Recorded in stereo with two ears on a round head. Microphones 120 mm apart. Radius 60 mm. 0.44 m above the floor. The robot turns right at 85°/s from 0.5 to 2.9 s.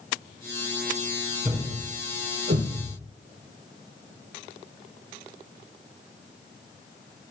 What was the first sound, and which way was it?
A thud, 20° right (ahead or behind).